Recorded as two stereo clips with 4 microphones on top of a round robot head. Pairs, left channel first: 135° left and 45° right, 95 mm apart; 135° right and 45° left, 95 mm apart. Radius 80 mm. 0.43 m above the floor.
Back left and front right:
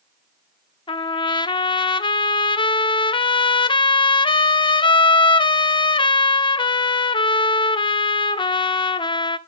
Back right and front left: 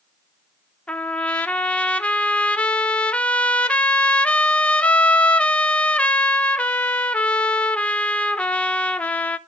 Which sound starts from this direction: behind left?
A trumpet, at 0.9 s.